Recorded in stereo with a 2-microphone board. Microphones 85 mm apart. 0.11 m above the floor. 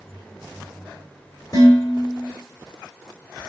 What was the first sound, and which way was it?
Dishes clattering, 40° left (ahead or behind).